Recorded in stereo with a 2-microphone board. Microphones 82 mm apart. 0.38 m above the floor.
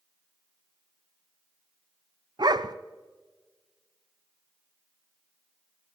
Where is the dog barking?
55° right (ahead or behind), 0.5 m.